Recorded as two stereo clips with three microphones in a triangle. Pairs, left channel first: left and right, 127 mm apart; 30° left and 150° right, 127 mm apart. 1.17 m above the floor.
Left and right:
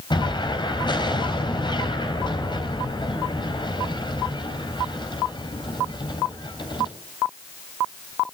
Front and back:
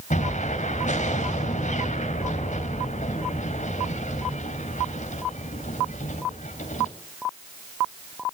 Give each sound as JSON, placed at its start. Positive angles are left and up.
{"t": 0.1, "sound": "an explosion", "azimuth_deg": 40, "distance_m": 3.5}